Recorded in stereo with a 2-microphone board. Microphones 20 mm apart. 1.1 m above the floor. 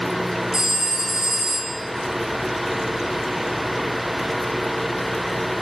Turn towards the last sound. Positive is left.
turn(degrees=-20)  # may be behind; listen again after turning